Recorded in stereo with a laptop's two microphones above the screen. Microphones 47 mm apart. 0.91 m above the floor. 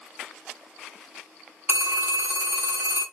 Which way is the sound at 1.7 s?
50° right (ahead or behind).